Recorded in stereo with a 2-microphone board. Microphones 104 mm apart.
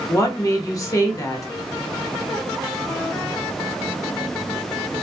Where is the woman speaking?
30° left (ahead or behind), 0.8 m.